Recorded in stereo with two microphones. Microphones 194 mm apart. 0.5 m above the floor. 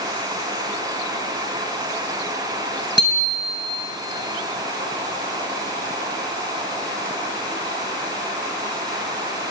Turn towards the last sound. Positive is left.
turn(degrees=-65)  # may be behind; listen again after turning